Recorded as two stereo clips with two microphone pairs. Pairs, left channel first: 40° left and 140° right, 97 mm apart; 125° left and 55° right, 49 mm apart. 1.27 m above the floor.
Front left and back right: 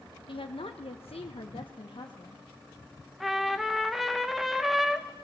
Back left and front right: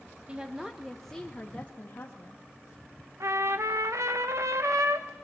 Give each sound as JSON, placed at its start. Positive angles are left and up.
{"t": 0.3, "sound": "a woman speaking", "azimuth_deg": 15, "distance_m": 1.2}
{"t": 3.2, "sound": "a trumpet", "azimuth_deg": -50, "distance_m": 1.1}